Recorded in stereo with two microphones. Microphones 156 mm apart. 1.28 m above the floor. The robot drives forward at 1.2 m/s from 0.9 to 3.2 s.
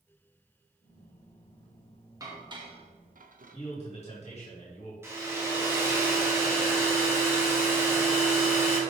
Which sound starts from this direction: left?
A man speaking, at 3.5 s.